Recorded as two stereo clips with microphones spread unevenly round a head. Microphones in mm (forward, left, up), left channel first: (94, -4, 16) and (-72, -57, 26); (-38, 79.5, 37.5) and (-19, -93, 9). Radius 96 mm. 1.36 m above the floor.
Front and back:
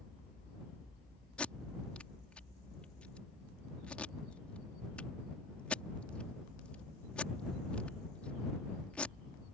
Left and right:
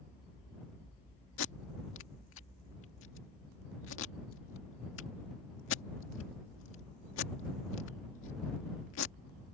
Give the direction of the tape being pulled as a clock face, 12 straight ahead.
9 o'clock.